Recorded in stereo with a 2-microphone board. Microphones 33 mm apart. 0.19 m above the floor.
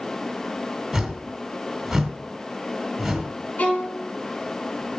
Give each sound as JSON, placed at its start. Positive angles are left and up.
{"t": 0.9, "sound": "a whoosh", "side_deg": -10, "distance_m": 1.5}
{"t": 3.6, "sound": "a violin", "side_deg": 45, "distance_m": 2.5}